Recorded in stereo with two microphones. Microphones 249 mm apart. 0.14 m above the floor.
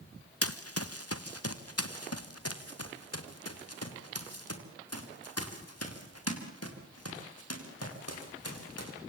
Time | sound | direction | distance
0.4 | running footsteps | 70° left (ahead or behind) | 1.5 m